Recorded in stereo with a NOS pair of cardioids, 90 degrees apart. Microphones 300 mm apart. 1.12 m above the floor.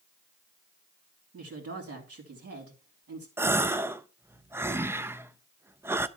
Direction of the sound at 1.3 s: 50° right.